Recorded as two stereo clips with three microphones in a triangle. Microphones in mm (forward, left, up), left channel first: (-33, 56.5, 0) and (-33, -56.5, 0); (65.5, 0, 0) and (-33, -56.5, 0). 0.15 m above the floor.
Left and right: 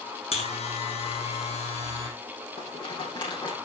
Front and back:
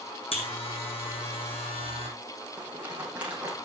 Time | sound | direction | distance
0.3 | a buzzer | 65° left | 4.5 m
2.6 | a rattle | 130° left | 6.5 m